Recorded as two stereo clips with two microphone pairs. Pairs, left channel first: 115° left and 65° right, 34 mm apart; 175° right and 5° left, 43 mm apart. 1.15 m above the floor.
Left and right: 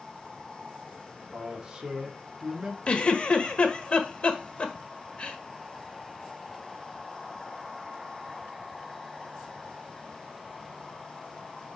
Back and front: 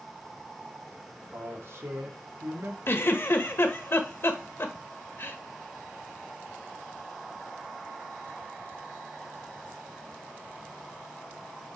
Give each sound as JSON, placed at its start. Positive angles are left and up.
{"t": 1.3, "sound": "a man speaking", "azimuth_deg": 0, "distance_m": 2.5}
{"t": 2.9, "sound": "a giggle", "azimuth_deg": 170, "distance_m": 1.5}